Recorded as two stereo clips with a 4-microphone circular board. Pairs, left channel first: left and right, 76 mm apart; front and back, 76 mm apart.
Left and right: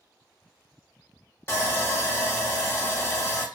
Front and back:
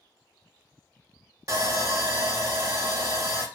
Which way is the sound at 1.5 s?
145° left.